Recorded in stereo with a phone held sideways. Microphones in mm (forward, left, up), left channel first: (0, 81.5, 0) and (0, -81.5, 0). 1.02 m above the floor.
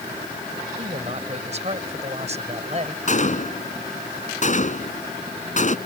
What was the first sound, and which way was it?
A man speaking, 45° right (ahead or behind).